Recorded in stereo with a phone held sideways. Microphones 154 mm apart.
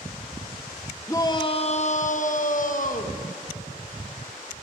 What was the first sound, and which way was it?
A shout, 20° left (ahead or behind).